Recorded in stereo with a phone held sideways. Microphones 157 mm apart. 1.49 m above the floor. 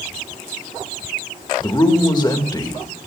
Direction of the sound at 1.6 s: 25° left (ahead or behind).